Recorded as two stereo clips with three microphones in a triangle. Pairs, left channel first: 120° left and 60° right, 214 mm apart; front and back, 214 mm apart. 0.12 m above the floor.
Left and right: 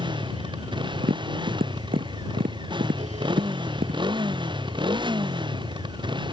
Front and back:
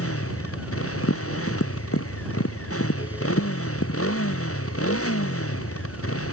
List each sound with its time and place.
0.0 s a motorcycle: 10° left
1.0 s tapping: 10° right